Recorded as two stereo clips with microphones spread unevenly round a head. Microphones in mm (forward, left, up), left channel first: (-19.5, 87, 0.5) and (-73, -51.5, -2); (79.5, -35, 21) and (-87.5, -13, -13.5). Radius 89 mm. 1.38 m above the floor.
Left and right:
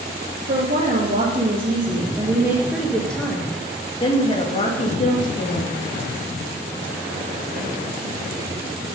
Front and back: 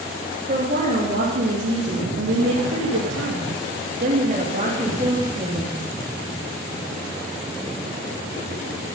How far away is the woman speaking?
About 2.5 m.